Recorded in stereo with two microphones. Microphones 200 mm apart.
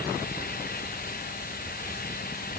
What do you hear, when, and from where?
Only background noise.